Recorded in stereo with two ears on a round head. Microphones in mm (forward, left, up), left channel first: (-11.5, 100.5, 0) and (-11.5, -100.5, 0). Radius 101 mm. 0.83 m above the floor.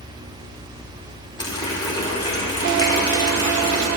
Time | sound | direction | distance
1.4 | a running tap | 20° left (ahead or behind) | 1.7 m